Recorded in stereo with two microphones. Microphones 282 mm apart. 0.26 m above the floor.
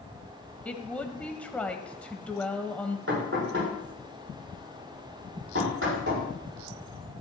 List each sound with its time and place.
0.7 s a woman speaking: 5° left (ahead or behind), 1.3 m
3.1 s knocking: 50° right (ahead or behind), 7 m